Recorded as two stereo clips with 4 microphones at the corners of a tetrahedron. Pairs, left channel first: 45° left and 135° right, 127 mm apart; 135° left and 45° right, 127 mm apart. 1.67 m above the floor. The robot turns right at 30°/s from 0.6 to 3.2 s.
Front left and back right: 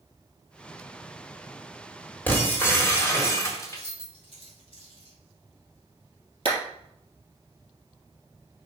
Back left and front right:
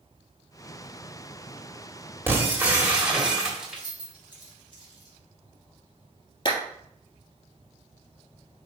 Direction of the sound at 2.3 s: Straight ahead.